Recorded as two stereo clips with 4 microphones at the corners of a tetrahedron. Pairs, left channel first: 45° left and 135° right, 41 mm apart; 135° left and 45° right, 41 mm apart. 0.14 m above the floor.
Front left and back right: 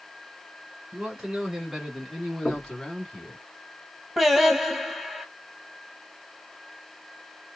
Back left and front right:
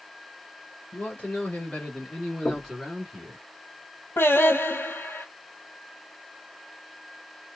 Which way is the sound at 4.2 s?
145° left.